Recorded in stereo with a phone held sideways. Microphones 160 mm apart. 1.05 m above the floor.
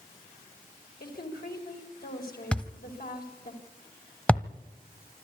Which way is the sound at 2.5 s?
10° left (ahead or behind).